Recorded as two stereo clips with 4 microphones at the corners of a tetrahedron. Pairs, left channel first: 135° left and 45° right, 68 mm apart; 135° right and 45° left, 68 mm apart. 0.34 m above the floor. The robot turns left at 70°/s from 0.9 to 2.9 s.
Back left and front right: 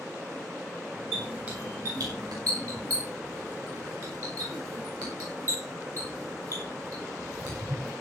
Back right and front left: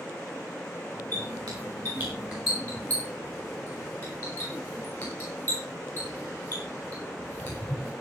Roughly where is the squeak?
Ahead left.